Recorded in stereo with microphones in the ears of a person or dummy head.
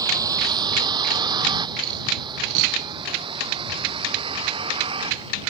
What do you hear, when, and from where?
0.0 s a vehicle: 20° right (ahead or behind); by 5.5 s 30° right (ahead or behind)